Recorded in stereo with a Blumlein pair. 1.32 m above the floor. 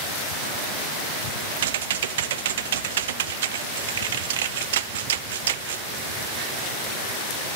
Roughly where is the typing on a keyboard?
Ahead right.